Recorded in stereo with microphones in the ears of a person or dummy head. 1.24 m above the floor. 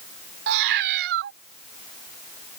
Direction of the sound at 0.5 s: 55° right (ahead or behind).